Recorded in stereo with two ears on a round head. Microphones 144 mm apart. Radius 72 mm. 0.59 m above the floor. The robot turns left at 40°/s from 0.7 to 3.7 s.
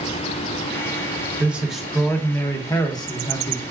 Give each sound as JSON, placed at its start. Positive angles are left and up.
{"t": 1.4, "sound": "a man speaking", "azimuth_deg": -165, "distance_m": 0.7}